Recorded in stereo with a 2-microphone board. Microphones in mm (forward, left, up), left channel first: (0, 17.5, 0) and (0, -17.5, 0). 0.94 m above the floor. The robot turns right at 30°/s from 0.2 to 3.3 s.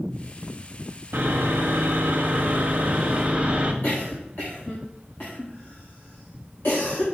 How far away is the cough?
About 1.7 m.